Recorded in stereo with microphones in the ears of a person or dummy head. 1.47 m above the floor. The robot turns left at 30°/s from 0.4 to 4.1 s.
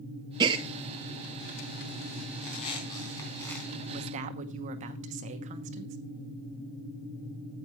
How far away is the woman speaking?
About 0.9 m.